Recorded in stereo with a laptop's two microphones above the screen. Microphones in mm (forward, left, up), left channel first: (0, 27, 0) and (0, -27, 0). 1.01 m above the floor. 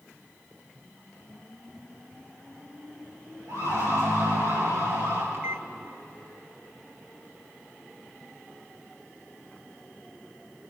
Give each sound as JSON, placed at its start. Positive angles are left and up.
{"t": 3.5, "sound": "a siren", "side_deg": -80, "distance_m": 9.5}
{"t": 5.3, "sound": "a microwave", "side_deg": -50, "distance_m": 0.6}